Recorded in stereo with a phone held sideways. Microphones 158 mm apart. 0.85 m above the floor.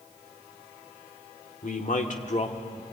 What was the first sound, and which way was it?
A man speaking, 55° left (ahead or behind).